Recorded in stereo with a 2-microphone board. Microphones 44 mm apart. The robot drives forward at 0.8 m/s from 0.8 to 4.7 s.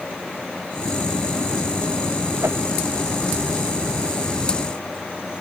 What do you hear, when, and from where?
2.4 s a whoosh: 70° right (ahead or behind)